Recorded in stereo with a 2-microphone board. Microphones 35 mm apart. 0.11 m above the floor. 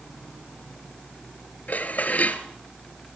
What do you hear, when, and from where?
1.7 s dishes clattering: 45° left (ahead or behind), 1.4 m